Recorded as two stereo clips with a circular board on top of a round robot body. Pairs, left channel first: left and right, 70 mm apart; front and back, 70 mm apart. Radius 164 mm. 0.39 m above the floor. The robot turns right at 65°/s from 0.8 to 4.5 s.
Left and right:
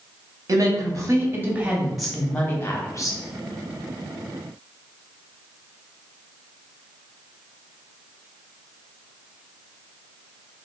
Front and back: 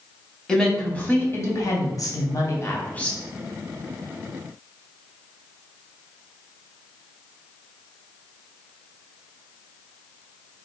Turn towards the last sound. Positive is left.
turn(degrees=160)